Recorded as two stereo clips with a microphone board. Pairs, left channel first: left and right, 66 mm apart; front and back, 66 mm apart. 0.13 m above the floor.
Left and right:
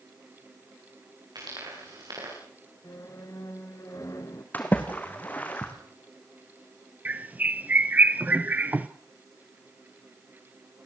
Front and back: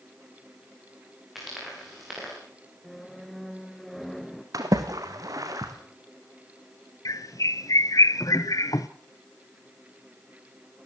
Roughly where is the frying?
Right.